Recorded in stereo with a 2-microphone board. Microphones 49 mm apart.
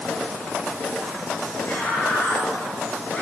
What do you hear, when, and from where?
1.6 s a scream: 50° left (ahead or behind), 4 m; by 3.2 s 40° left (ahead or behind), 5 m